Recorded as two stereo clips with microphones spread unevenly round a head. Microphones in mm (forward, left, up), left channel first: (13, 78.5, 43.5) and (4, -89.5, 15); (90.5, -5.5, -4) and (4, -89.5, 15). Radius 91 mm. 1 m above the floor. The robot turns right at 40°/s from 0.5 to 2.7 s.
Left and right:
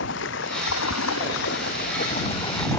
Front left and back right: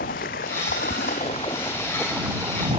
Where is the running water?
70° left; by 2.8 s 160° left.